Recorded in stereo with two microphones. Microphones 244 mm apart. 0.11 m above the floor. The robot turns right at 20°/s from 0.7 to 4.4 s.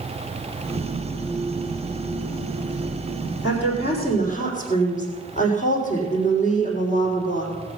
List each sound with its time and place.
3.4 s a woman speaking: 50° left (ahead or behind), 5 m; by 7.5 s 30° left (ahead or behind), 5 m